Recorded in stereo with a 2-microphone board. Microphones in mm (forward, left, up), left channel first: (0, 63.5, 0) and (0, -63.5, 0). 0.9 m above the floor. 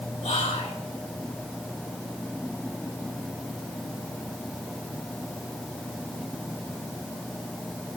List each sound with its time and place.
0.2 s whispering: 70° left (ahead or behind), 3.5 m